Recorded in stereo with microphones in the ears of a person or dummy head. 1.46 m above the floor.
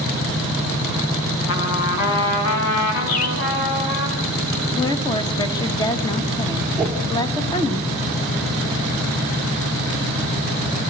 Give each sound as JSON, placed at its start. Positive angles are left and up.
{"t": 1.5, "sound": "a trumpet", "side_deg": 75, "distance_m": 4.5}
{"t": 3.1, "sound": "a bird", "side_deg": 70, "distance_m": 1.4}
{"t": 4.7, "sound": "a woman speaking", "side_deg": 20, "distance_m": 1.6}
{"t": 6.8, "sound": "a whoosh", "side_deg": -10, "distance_m": 3.5}